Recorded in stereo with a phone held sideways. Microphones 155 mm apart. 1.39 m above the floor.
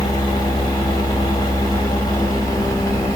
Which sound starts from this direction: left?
A machine running, at 0.0 s.